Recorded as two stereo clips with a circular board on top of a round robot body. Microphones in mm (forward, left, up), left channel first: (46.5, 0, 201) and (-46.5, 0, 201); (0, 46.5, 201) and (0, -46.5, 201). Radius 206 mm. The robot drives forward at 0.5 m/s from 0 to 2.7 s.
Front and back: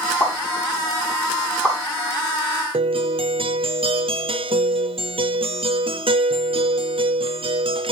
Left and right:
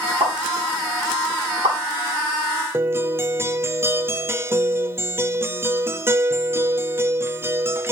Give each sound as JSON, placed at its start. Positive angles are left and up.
{"t": 0.2, "sound": "a pop", "azimuth_deg": -75, "distance_m": 6.0}
{"t": 2.7, "sound": "a guitar", "azimuth_deg": -155, "distance_m": 0.6}